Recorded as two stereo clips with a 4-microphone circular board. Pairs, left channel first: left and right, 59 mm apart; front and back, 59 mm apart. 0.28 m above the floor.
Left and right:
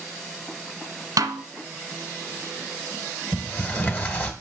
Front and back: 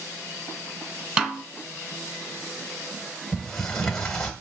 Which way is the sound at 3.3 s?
75° left.